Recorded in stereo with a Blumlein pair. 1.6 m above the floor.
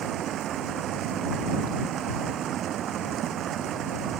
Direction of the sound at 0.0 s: 30° right.